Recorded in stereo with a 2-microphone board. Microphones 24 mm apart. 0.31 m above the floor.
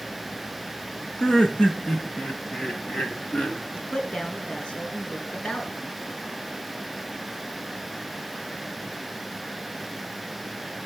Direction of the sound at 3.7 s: 45° left (ahead or behind).